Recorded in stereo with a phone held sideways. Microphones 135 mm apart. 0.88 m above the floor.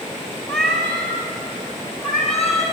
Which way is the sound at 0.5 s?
5° left (ahead or behind).